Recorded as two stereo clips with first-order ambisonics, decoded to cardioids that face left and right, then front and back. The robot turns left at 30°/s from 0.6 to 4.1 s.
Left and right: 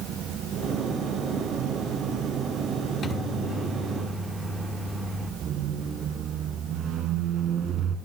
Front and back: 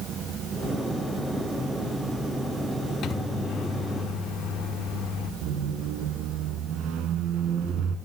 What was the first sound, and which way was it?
A microwave, 35° left.